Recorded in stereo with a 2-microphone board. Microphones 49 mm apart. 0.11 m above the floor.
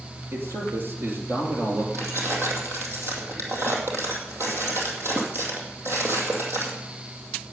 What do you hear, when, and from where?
0.3 s a man speaking: 45° right (ahead or behind), 3 m
1.9 s keys jangling: 55° right (ahead or behind), 2.5 m